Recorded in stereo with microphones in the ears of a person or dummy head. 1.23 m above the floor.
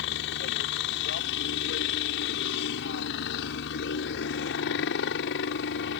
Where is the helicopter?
60° left (ahead or behind).